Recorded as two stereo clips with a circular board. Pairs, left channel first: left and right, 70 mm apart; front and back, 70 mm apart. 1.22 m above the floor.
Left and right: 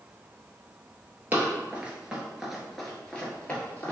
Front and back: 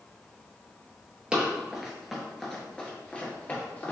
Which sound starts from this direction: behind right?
Running footsteps, at 1.3 s.